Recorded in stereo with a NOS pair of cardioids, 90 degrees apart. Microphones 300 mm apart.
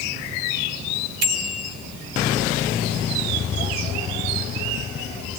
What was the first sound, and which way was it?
A bicycle bell, 55° right.